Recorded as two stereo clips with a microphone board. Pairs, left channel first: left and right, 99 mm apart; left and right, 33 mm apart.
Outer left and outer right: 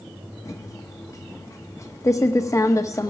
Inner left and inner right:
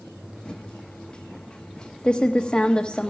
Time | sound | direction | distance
0.5 | typing on a keyboard | 30° left (ahead or behind) | 1.0 m